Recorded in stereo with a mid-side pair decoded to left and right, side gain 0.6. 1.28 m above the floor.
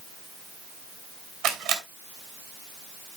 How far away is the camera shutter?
About 4 m.